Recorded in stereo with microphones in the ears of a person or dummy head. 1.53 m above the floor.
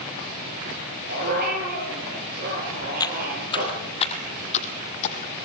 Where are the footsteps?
15° left (ahead or behind), 2 m; by 5.3 s 35° left (ahead or behind), 3 m.